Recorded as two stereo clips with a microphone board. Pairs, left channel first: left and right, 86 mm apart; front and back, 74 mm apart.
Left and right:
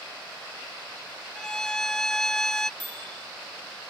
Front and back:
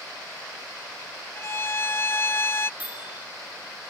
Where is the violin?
10° left.